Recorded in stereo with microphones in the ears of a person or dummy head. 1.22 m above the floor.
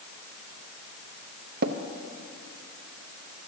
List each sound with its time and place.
1.6 s tapping: 55° right (ahead or behind), 0.6 m